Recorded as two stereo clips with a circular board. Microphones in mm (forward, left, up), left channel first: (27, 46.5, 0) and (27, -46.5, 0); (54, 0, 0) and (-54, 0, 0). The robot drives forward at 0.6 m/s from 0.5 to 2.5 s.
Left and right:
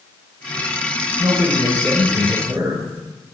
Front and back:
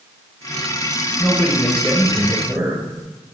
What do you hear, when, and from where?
1.2 s a man speaking: 70° right, 1.2 m; by 2.9 s 130° right, 1.3 m